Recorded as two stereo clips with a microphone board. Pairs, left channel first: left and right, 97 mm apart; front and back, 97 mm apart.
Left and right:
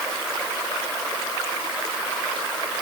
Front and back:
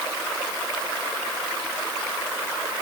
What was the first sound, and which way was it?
Only background noise.